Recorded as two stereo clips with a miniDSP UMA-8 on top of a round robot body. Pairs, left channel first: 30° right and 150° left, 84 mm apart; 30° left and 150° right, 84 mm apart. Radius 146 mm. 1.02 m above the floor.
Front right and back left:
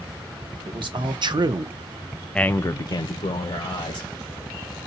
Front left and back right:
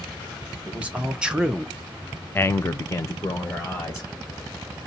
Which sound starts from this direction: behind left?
A man speaking, at 0.7 s.